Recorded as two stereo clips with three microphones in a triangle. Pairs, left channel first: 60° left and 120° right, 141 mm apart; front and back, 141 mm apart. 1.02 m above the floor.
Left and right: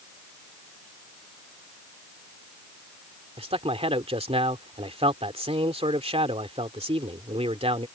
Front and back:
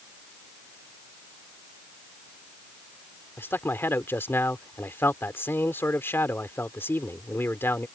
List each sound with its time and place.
3.4 s a man speaking: 75° right